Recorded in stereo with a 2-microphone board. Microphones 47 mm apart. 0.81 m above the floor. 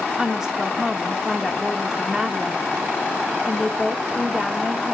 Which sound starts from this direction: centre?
A woman speaking, at 0.2 s.